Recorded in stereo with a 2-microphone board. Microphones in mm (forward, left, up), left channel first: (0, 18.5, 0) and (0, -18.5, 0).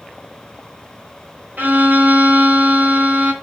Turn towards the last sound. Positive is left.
turn(degrees=-55)  # may be behind; listen again after turning